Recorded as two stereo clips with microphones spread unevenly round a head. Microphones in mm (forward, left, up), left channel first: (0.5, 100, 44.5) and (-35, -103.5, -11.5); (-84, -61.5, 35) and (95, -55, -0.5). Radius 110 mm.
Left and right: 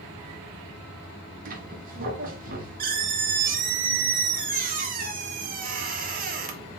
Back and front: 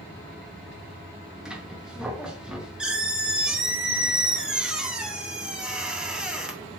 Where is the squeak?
105° right, 0.6 m.